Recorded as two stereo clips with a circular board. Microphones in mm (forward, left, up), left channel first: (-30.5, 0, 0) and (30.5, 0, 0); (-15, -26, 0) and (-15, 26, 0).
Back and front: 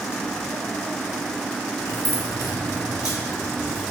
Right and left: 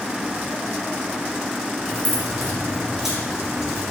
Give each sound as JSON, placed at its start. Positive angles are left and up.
{"t": 1.9, "sound": "keys jangling", "azimuth_deg": -175, "distance_m": 1.8}